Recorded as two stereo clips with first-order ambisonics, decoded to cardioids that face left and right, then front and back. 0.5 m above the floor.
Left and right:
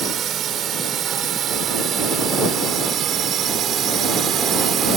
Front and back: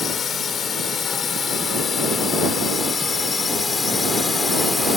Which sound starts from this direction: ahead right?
A drone, at 0.0 s.